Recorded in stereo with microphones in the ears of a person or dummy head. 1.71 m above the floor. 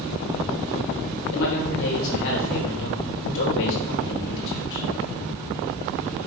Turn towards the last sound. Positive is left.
turn(degrees=70)  # may be behind; listen again after turning